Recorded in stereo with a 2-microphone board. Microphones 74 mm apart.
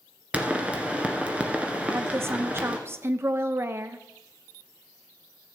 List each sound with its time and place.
0.3 s a pop: 15° right (ahead or behind), 1.4 m
1.9 s a woman speaking: 35° right (ahead or behind), 0.7 m